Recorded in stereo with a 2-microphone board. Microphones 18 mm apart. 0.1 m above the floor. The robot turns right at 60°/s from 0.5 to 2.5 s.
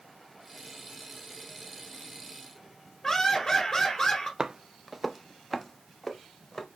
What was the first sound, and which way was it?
Laughter, 20° left (ahead or behind).